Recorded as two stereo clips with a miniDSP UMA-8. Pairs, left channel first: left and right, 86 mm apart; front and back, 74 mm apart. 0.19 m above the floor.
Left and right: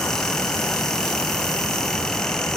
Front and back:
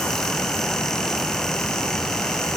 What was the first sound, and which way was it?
Only background noise.